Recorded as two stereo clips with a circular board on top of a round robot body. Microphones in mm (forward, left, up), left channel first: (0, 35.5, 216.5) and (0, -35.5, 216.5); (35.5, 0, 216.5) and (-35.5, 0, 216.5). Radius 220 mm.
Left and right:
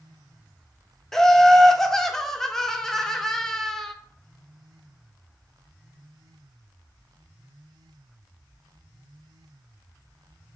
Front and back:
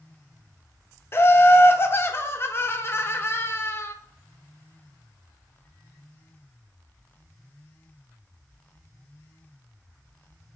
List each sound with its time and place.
1.1 s laughter: 10° left, 0.6 m